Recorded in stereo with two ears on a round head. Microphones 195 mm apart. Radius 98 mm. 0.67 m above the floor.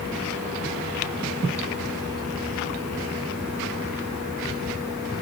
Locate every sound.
Only background noise.